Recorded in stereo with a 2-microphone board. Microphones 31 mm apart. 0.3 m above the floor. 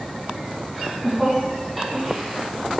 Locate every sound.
0.7 s laughter: 5° right (ahead or behind), 2.5 m